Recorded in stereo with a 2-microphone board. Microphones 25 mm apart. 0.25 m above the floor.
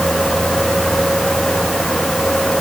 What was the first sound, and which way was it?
Only background noise.